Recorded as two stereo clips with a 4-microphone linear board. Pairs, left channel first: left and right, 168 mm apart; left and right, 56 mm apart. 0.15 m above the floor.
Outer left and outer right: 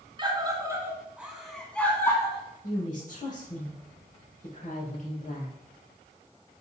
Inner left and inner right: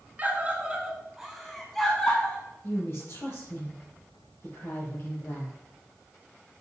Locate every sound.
0.2 s a scream: 30° right (ahead or behind), 1.5 m; by 2.4 s 20° left (ahead or behind), 1.4 m
2.6 s a woman speaking: 50° left (ahead or behind), 4.5 m